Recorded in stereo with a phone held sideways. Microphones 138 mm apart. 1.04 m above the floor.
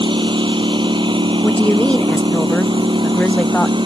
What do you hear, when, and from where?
0.0 s a lawn mower: 35° right (ahead or behind)
1.4 s a woman speaking: 10° left (ahead or behind)